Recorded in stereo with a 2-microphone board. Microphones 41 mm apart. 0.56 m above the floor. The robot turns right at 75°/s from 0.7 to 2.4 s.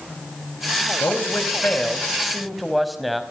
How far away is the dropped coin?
I don't hear a dropped coin.